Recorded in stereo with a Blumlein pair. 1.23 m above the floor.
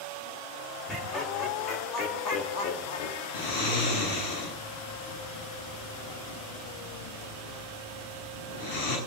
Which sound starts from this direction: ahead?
Laughter, at 0.9 s.